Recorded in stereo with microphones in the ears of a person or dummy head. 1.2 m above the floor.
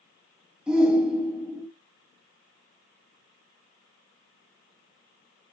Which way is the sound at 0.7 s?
5° right (ahead or behind).